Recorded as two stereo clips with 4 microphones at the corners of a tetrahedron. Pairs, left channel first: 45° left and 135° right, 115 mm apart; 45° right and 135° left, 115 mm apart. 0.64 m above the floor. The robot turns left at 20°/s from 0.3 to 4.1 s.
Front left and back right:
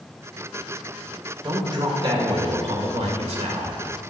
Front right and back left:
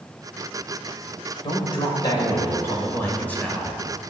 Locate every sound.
1.4 s a man speaking: 85° right, 2 m; by 3.8 s 130° right, 2 m